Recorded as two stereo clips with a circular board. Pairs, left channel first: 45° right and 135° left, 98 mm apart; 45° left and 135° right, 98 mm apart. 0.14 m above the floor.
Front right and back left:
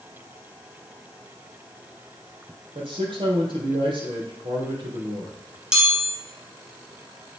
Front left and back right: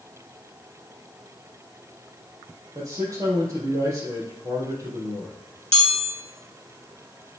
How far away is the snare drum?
No snare drum in this recording.